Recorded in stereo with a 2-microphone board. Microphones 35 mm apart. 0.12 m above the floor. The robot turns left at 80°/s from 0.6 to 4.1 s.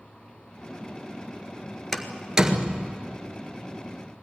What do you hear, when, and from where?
1.9 s a door slam: 10° left (ahead or behind), 1.6 m; by 2.9 s 45° right (ahead or behind), 1.6 m